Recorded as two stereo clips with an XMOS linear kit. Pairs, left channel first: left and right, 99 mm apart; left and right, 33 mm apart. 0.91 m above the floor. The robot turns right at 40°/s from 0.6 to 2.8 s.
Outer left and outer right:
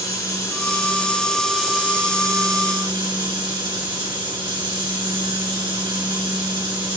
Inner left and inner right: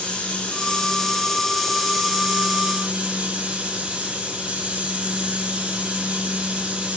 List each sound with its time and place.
0.0 s running water: 145° left, 2.5 m; by 7.0 s 125° right, 2.5 m